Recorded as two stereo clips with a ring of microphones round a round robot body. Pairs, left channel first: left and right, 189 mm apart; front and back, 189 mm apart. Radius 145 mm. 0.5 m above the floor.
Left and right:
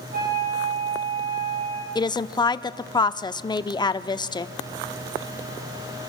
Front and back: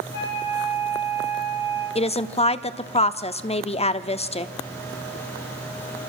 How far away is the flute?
About 8.5 m.